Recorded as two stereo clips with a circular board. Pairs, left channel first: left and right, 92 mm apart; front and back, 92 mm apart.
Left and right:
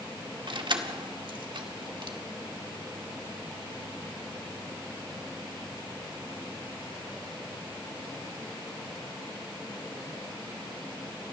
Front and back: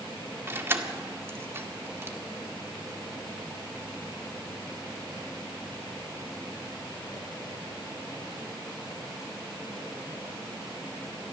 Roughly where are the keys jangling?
Behind right.